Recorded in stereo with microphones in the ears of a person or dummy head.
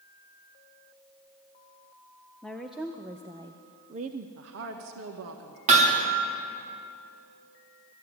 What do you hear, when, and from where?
2.4 s a woman speaking: 5° left (ahead or behind), 1.0 m; by 4.3 s 50° right (ahead or behind), 1.0 m
4.4 s a woman speaking: 70° right (ahead or behind), 1.5 m
5.7 s hammering: 40° right (ahead or behind), 2.5 m